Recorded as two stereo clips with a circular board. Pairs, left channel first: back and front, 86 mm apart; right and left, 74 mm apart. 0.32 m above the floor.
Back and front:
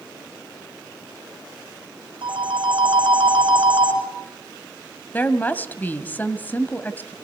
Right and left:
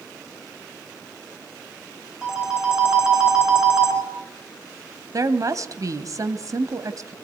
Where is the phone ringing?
10° left, 3 m.